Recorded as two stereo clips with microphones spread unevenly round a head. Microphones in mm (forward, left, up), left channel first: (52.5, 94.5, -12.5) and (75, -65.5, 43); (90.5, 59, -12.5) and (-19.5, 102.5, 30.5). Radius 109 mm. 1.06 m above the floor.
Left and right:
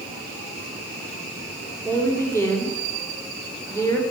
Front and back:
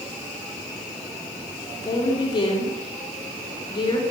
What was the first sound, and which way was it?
A woman speaking, 25° left.